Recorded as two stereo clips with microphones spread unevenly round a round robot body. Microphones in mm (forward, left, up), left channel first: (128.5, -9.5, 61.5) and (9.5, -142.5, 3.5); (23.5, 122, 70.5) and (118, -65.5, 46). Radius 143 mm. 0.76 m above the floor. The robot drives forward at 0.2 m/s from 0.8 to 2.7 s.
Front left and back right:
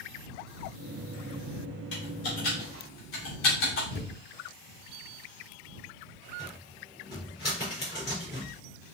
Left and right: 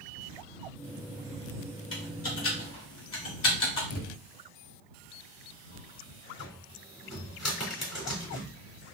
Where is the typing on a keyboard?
100° left, 2.5 m; by 3.8 s 105° left, 2.5 m.